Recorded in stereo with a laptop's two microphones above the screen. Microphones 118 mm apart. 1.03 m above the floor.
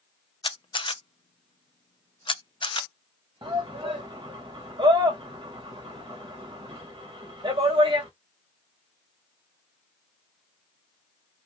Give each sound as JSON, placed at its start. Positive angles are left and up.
{"t": 0.4, "sound": "a camera shutter", "side_deg": 45, "distance_m": 0.5}
{"t": 3.4, "sound": "a shout", "side_deg": -45, "distance_m": 1.0}